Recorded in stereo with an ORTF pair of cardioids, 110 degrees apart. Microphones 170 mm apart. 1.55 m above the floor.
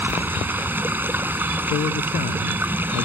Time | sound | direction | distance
0.0 | running water | 10° right | ?
1.7 | a man speaking | 60° left | ?